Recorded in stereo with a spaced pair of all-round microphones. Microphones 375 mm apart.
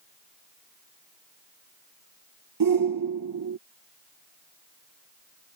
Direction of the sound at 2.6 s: 60° right (ahead or behind).